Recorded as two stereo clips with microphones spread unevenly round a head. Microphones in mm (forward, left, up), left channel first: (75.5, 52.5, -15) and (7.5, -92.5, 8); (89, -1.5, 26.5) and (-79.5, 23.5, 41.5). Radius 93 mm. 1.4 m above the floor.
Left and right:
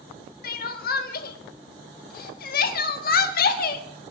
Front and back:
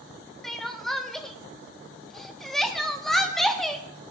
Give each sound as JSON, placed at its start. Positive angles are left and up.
{"t": 0.4, "sound": "crying", "azimuth_deg": 85, "distance_m": 1.1}